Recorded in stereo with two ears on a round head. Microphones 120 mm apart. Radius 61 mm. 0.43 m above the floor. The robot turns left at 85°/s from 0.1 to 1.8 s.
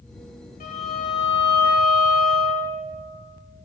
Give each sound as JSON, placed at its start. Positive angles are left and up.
{"t": 0.6, "sound": "a violin", "azimuth_deg": 105, "distance_m": 2.5}